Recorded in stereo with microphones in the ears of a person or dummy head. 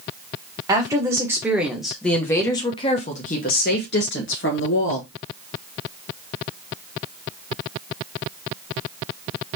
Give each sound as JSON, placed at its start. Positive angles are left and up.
{"t": 0.7, "sound": "a woman speaking", "side_deg": -15, "distance_m": 1.4}